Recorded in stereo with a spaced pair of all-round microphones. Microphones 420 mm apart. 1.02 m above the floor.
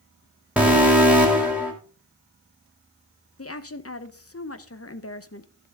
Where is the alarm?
5° right (ahead or behind), 3 m.